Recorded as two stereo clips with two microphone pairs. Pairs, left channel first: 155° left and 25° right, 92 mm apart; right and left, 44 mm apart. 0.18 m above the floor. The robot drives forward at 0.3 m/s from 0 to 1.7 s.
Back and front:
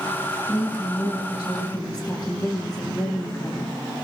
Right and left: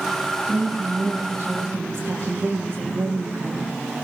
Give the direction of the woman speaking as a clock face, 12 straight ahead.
8 o'clock.